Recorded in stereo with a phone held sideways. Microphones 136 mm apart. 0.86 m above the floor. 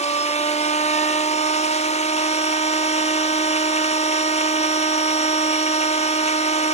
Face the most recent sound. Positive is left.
turn(degrees=55)  # may be behind; listen again after turning